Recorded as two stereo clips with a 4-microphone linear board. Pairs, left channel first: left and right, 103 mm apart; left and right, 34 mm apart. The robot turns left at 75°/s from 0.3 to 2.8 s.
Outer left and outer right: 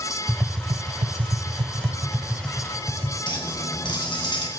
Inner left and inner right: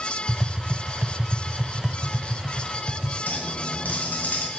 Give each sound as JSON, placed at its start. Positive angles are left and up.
{"t": 0.3, "sound": "tapping", "side_deg": -15, "distance_m": 0.5}
{"t": 3.3, "sound": "a clink", "side_deg": 50, "distance_m": 2.0}